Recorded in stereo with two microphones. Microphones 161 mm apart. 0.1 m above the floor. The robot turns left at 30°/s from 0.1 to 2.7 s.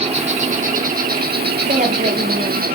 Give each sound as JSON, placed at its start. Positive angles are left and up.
{"t": 0.0, "sound": "an insect", "azimuth_deg": -40, "distance_m": 1.2}
{"t": 1.7, "sound": "a woman speaking", "side_deg": -55, "distance_m": 2.5}